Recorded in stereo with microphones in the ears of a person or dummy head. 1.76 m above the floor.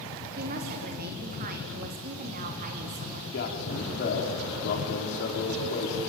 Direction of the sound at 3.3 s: 65° left (ahead or behind).